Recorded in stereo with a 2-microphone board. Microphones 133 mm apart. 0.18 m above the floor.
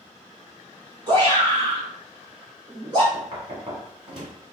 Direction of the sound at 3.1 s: 40° right (ahead or behind).